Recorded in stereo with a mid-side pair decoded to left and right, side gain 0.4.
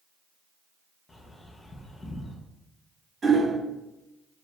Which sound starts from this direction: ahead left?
A bird, at 1.1 s.